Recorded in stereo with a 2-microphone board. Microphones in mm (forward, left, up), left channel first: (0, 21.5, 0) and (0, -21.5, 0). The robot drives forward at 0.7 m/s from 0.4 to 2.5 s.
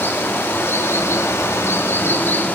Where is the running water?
55° left (ahead or behind), 1.2 m; by 2.6 s 50° left (ahead or behind), 1.3 m.